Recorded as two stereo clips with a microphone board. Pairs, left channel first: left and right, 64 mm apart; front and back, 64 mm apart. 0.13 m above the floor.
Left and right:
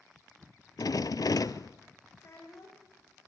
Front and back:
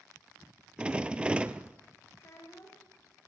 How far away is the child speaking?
About 6.5 m.